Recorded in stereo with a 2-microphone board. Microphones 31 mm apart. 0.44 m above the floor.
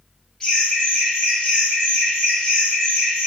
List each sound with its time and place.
0.4 s laughter: 25° left (ahead or behind), 1.2 m